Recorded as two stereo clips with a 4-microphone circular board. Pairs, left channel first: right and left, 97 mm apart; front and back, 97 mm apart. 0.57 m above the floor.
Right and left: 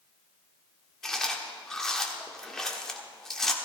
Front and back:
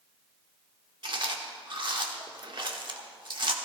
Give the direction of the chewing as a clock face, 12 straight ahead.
6 o'clock.